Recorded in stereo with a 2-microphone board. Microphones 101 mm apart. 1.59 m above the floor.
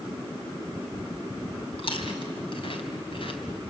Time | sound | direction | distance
1.8 | chewing | 60° left (ahead or behind) | 2.5 m